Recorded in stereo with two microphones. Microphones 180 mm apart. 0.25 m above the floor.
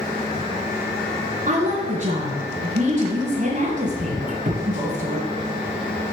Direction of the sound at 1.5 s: 45° right (ahead or behind).